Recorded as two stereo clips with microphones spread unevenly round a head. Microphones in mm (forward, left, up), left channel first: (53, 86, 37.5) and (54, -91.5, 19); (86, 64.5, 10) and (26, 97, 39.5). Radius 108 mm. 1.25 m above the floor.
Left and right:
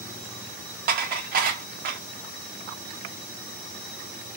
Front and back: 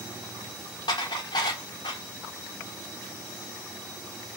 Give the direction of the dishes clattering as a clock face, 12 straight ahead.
2 o'clock.